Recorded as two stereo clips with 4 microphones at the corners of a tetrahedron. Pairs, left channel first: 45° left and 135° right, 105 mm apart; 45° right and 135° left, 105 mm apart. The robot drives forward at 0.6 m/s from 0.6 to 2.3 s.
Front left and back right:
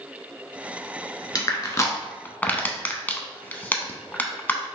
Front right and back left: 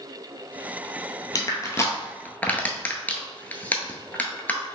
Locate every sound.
1.4 s crushing: straight ahead, 1.0 m